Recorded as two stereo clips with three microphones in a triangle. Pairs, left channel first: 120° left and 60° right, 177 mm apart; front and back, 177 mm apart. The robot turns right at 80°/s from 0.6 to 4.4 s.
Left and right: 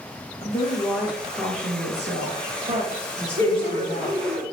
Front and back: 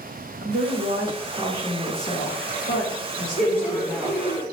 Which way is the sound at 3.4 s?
50° left.